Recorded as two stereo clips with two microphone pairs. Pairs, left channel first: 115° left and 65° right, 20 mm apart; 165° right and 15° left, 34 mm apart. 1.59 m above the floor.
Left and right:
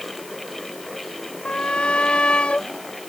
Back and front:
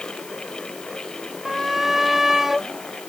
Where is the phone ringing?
I don't hear a phone ringing.